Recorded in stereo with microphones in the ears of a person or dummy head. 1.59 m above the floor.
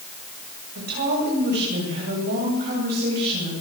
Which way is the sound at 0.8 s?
50° right (ahead or behind).